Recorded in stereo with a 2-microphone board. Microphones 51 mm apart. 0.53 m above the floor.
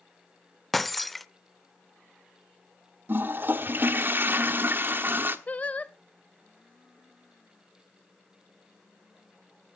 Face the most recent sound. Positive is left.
turn(degrees=30)  # may be behind; listen again after turning